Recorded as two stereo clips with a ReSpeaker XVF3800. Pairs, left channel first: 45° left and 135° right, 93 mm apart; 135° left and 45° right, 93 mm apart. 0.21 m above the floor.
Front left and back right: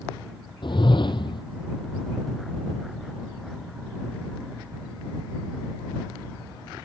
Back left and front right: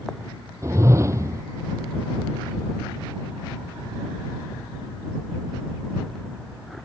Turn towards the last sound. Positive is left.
turn(degrees=10)